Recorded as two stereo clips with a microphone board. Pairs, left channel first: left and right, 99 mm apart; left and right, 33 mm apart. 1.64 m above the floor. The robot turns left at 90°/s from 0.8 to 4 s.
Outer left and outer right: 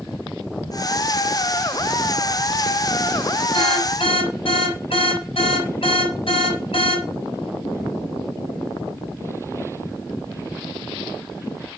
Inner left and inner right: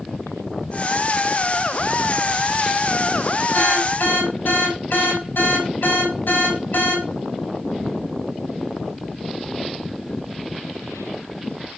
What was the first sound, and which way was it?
An alarm, 120° left.